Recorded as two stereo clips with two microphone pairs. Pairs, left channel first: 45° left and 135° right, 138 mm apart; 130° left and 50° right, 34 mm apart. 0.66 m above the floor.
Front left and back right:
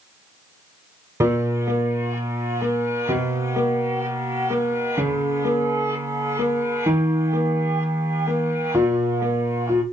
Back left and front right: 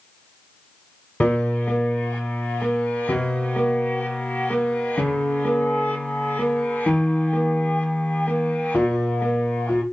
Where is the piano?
155° left, 0.9 m.